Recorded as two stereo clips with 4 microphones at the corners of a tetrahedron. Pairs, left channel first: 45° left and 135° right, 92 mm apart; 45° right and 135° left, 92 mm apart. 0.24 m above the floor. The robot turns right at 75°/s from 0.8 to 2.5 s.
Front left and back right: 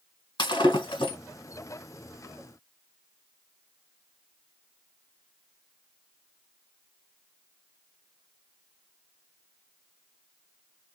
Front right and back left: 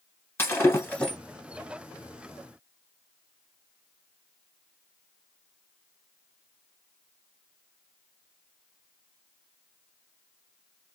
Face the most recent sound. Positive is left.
turn(degrees=145)